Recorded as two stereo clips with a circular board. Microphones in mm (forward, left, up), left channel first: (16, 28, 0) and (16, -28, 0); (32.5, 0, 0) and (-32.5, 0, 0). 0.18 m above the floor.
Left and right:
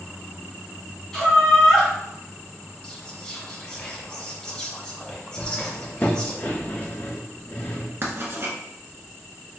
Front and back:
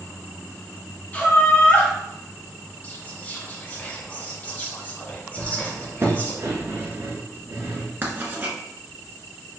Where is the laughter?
25° left, 1.8 m.